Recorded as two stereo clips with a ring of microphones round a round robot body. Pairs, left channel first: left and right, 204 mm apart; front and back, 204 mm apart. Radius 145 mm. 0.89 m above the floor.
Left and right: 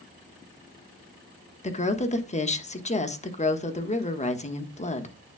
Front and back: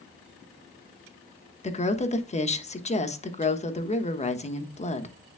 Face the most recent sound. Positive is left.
turn(degrees=45)